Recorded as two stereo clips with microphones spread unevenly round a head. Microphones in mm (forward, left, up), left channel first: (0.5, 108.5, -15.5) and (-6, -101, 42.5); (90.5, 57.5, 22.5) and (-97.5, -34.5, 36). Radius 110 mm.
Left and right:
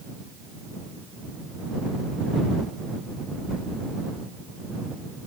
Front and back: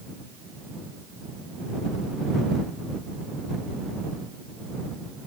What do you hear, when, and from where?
Only background noise.